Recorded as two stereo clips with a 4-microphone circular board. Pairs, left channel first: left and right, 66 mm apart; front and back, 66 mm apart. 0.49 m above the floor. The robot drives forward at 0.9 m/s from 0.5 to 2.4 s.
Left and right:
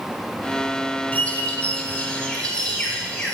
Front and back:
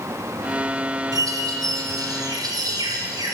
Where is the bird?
160° left, 1.1 m; by 3.4 s 170° left, 2.5 m.